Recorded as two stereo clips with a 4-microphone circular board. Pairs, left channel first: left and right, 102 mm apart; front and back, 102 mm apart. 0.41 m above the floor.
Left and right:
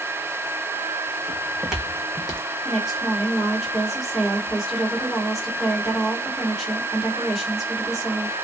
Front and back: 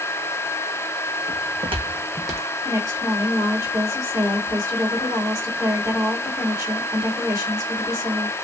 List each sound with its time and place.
1.3 s footsteps: 155° right, 1.3 m; by 2.4 s 120° left, 0.8 m
2.6 s a woman speaking: 175° right, 1.5 m